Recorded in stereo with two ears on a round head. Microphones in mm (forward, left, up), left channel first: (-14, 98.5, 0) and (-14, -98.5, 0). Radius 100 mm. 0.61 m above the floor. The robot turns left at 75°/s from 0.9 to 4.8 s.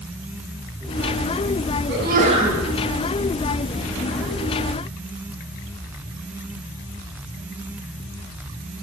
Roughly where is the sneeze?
Behind right.